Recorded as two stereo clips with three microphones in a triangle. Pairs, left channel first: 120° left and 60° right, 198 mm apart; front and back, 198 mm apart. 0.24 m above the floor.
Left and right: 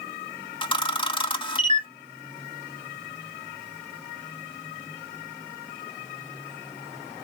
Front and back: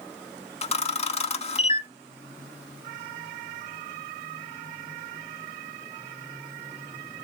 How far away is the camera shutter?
About 0.5 m.